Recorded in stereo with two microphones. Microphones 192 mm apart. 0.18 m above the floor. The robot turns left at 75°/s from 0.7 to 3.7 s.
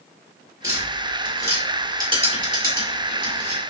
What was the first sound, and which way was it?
Tapping, 55° left (ahead or behind).